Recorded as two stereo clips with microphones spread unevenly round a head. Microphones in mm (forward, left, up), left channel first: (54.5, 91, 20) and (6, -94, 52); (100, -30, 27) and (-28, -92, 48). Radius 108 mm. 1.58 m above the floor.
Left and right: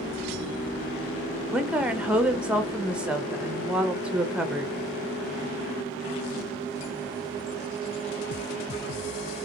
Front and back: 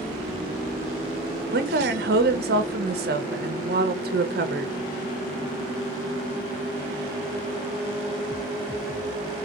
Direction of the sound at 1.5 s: 170° left.